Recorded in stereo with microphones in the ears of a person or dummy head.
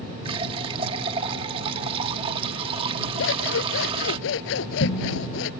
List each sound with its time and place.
0.2 s a running tap: 30° right (ahead or behind)
3.2 s scissors: 70° left (ahead or behind)